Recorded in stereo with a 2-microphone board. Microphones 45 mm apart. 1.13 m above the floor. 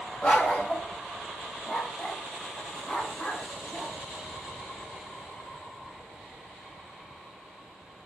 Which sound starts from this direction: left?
A dog barking, at 0.2 s.